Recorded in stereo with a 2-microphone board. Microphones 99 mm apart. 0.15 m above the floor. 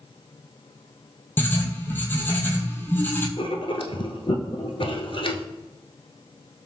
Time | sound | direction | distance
1.4 | writing | 20° left (ahead or behind) | 0.9 m
3.4 | writing | 65° left (ahead or behind) | 0.6 m